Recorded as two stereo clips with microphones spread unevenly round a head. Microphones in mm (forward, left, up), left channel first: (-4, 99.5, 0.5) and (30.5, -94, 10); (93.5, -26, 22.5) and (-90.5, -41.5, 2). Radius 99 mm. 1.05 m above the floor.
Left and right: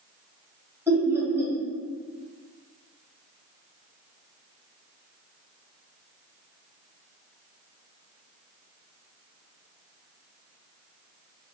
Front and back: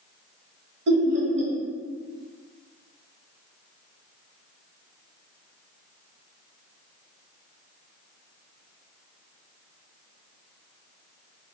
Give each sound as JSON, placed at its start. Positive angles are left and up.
{"t": 0.9, "sound": "laughter", "azimuth_deg": -160, "distance_m": 1.3}